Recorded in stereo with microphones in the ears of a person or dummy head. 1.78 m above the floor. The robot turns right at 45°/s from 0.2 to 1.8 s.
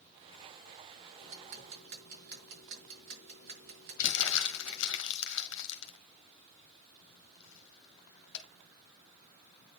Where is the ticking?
75° right (ahead or behind), 5 m; by 5.0 s 55° right (ahead or behind), 5 m.